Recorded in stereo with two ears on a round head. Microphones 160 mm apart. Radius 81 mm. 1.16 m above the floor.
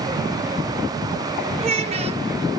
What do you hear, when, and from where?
1.6 s a child speaking: 35° right (ahead or behind), 0.7 m